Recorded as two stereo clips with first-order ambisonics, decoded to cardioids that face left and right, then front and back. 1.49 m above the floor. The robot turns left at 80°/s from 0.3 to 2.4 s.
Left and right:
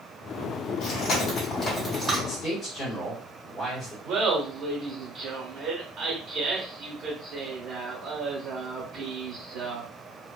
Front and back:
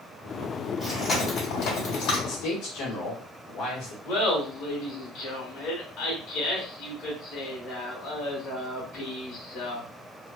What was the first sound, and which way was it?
Chewing, 100° left.